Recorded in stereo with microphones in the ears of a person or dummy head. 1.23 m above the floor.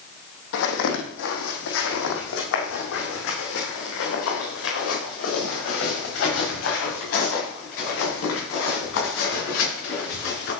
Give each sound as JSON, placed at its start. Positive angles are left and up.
{"t": 0.5, "sound": "footsteps", "side_deg": 65, "distance_m": 3.0}